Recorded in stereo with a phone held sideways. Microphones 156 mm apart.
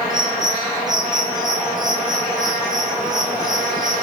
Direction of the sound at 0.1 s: 5° right (ahead or behind).